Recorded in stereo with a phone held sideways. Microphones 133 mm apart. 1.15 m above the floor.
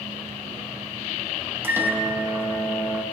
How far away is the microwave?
About 0.7 m.